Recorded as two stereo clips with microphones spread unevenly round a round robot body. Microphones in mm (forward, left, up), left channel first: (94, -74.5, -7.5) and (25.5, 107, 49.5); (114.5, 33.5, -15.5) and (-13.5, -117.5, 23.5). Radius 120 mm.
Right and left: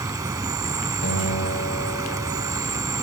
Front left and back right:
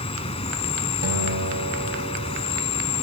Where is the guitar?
110° right, 3 m.